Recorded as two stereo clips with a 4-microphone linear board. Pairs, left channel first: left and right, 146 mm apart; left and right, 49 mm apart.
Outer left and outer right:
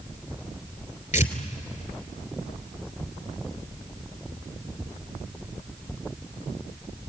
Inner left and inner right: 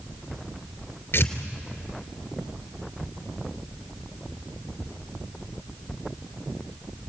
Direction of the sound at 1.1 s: 60° left (ahead or behind).